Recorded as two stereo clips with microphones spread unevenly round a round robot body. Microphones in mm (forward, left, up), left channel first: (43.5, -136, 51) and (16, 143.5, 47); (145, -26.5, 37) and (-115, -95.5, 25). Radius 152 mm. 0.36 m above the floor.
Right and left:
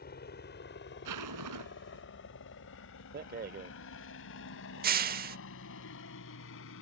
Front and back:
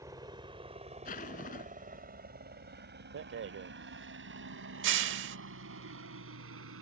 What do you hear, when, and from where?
0.0 s a helicopter: 100° right; by 6.8 s 130° right
1.1 s a zipper: 80° left
3.1 s a rattle: 150° left